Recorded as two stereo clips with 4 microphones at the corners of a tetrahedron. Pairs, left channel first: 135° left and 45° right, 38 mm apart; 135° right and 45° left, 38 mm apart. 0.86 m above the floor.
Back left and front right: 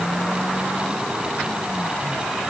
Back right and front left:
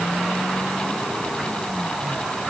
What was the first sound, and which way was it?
Only background noise.